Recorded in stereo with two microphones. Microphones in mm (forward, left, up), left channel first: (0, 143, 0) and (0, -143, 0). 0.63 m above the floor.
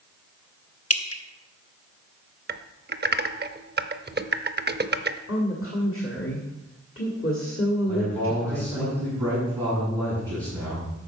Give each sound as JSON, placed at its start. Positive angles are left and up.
{"t": 0.9, "sound": "dripping", "side_deg": 55, "distance_m": 0.9}
{"t": 2.5, "sound": "typing on a keyboard", "side_deg": -35, "distance_m": 0.5}
{"t": 5.3, "sound": "a woman speaking", "side_deg": 50, "distance_m": 1.8}
{"t": 7.9, "sound": "a man speaking", "side_deg": -15, "distance_m": 5.0}